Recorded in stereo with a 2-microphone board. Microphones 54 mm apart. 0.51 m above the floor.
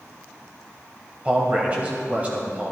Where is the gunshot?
I don't hear a gunshot.